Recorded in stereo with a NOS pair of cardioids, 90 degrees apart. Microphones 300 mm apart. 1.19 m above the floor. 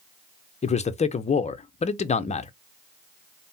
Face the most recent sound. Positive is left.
turn(degrees=25)